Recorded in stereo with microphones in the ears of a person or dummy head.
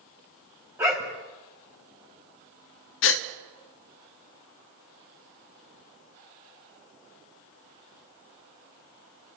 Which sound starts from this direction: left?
A gasp, at 3.0 s.